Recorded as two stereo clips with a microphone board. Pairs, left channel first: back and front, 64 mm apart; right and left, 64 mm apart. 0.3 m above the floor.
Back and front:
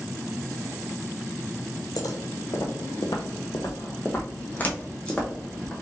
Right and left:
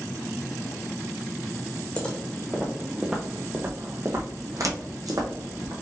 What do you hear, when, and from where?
2.0 s footsteps: 165° right, 1.1 m; by 5.7 s 100° left, 1.4 m